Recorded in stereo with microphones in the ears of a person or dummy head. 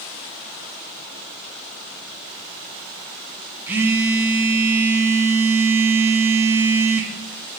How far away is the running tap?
I don't hear a running tap.